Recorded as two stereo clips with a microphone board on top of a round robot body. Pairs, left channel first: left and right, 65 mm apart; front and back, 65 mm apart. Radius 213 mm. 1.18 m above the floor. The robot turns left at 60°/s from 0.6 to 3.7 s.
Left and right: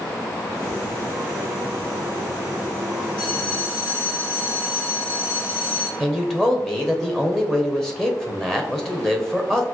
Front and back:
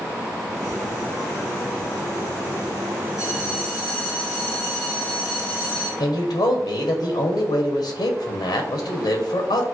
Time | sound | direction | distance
3.2 | a bell | 95° left | 2.0 m
6.0 | a man speaking | 5° left | 0.7 m